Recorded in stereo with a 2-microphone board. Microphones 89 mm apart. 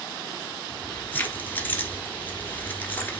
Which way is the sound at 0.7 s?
20° left (ahead or behind).